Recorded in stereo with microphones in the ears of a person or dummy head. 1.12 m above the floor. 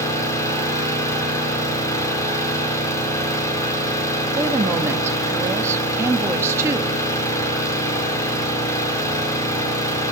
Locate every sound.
0.0 s an engine running: 15° left (ahead or behind), 3.5 m
4.4 s a woman speaking: 15° right (ahead or behind), 1.3 m